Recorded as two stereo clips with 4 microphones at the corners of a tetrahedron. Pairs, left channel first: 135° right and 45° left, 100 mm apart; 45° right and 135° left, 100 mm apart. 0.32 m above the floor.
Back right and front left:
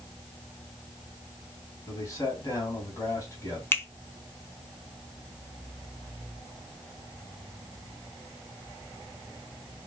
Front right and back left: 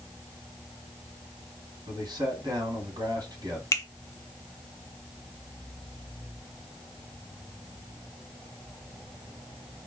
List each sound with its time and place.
1.9 s a man speaking: 175° left, 2.5 m
3.7 s a finger snap: 80° right, 0.8 m